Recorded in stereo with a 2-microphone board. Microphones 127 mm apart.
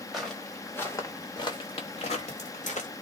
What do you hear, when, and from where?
0.1 s footsteps: centre (ahead or behind), 1.1 m; by 2.9 s 70° left (ahead or behind), 1.3 m